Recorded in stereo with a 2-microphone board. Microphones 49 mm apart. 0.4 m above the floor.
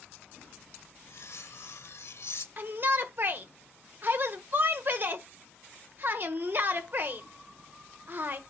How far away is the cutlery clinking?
About 0.8 m.